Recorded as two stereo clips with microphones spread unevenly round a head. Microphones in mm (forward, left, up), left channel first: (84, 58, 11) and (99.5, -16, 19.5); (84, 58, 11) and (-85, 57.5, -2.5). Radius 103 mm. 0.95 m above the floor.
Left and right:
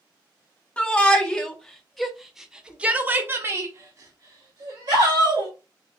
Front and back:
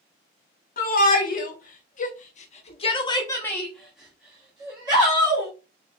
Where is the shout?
35° left, 1.5 m; by 5.5 s 120° right, 1.4 m.